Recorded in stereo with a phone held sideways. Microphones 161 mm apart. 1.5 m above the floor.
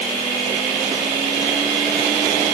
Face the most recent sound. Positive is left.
No sound to turn to.